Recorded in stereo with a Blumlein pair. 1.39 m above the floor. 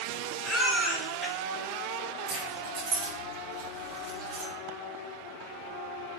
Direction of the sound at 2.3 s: 35° right.